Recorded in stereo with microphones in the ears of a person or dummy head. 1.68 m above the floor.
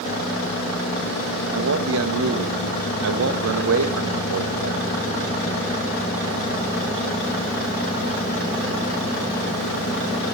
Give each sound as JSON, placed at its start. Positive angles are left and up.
{"t": 1.5, "sound": "a man speaking", "side_deg": -75, "distance_m": 1.9}